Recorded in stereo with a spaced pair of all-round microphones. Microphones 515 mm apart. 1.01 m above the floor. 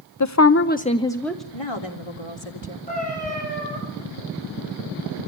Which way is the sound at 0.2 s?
35° left (ahead or behind).